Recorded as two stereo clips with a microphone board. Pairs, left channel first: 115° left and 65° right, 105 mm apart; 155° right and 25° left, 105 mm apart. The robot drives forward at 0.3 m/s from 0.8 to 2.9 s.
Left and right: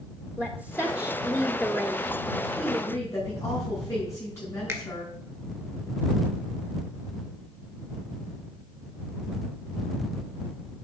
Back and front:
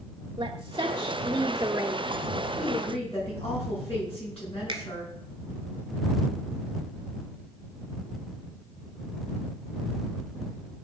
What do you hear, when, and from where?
0.4 s a woman speaking: 5° left, 1.0 m; by 2.0 s 10° left, 0.8 m
2.6 s a woman speaking: 175° left, 5.5 m
4.7 s a finger snap: 10° right, 1.9 m